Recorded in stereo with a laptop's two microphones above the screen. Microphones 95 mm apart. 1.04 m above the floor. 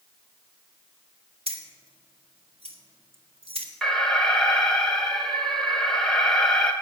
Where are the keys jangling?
85° right, 1.8 m.